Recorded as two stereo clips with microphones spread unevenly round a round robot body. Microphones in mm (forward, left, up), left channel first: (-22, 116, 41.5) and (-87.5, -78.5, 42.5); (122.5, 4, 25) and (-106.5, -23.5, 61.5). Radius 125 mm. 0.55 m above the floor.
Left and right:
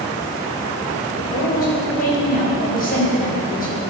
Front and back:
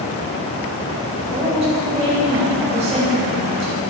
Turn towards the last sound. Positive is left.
turn(degrees=120)